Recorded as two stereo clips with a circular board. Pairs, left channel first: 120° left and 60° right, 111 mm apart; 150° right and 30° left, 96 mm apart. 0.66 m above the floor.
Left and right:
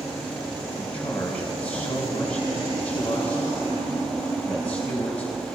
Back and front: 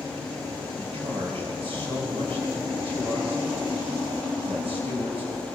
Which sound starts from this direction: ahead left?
A man speaking, at 0.8 s.